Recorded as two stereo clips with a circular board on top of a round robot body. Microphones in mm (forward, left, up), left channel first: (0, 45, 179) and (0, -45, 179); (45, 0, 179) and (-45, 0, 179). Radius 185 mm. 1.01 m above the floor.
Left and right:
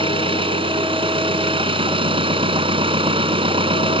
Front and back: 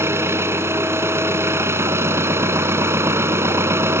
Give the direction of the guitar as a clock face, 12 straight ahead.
No guitar in this recording.